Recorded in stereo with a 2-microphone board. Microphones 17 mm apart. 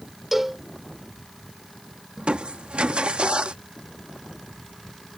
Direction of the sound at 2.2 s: 75° right (ahead or behind).